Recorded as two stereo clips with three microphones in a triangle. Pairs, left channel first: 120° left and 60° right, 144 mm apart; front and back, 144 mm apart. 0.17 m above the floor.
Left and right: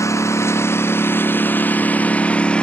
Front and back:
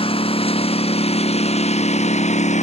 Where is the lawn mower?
50° left; by 2.6 s 35° left.